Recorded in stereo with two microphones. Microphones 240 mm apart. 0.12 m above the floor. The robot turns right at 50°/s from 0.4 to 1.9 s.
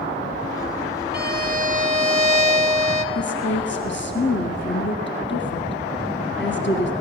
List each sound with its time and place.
1.1 s a violin: 80° right, 1.0 m; by 3.0 s 45° right, 1.0 m
3.1 s a woman speaking: 50° left (ahead or behind), 1.7 m